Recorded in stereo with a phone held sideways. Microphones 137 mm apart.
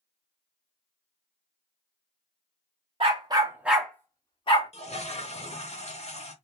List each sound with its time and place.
3.0 s a dog barking: 45° right (ahead or behind), 1.0 m; by 4.7 s 50° left (ahead or behind), 1.0 m
4.7 s a toilet flushing: 55° left (ahead or behind), 0.7 m